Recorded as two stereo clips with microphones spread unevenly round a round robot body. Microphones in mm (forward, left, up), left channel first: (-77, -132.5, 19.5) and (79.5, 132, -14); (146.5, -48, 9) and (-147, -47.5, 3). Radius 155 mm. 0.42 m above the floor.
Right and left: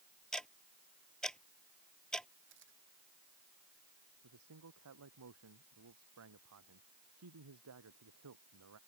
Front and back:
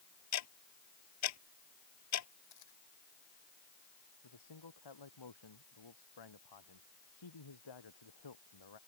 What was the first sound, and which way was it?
Ticking, 35° right.